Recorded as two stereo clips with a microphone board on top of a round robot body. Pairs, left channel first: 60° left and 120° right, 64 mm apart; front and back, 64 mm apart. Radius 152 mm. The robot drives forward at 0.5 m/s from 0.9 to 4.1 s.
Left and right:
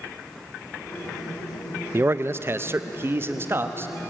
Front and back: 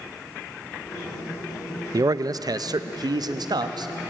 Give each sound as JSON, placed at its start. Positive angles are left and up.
{"t": 1.9, "sound": "a man speaking", "azimuth_deg": -170, "distance_m": 0.8}